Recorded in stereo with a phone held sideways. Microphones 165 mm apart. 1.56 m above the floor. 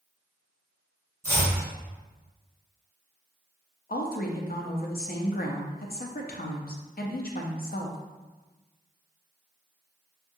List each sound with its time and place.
1.2 s chopping: 15° right (ahead or behind), 1.2 m
3.9 s a woman speaking: 65° left (ahead or behind), 0.5 m